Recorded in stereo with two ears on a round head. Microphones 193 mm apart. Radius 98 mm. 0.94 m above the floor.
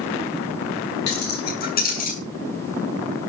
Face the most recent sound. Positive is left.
turn(degrees=40)  # may be behind; listen again after turning